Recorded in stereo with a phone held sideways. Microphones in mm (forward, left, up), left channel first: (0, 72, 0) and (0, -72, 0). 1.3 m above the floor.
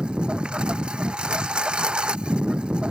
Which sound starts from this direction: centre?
A lawn mower, at 0.0 s.